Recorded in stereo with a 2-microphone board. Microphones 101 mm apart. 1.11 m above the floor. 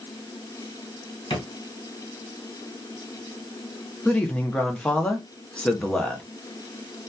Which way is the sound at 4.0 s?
10° left (ahead or behind).